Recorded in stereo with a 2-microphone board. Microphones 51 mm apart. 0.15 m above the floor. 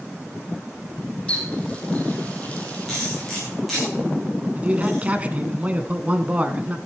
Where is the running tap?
20° left (ahead or behind), 3.5 m.